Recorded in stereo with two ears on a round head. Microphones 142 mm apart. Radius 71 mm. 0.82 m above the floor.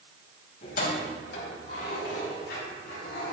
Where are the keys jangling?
60° left (ahead or behind), 3.5 m; by 3.3 s 75° left (ahead or behind), 5.5 m.